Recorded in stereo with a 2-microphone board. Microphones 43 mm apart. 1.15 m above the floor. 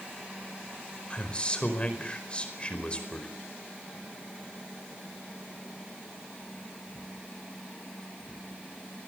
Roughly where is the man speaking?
Left.